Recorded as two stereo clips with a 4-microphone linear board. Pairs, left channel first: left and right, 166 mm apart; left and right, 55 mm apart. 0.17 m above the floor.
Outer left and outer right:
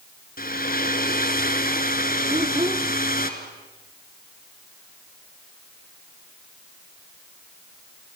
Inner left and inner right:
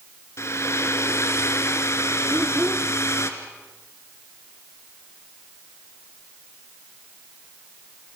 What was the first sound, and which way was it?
A hair dryer, 60° left (ahead or behind).